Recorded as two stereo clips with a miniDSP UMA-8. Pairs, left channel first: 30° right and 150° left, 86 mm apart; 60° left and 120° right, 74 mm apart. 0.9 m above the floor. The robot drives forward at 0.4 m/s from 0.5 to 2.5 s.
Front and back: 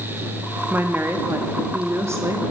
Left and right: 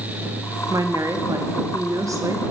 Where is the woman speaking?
145° right, 1.8 m; by 2.4 s 155° right, 2.5 m.